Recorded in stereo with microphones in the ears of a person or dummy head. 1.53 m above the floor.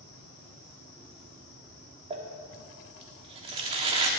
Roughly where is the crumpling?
Right.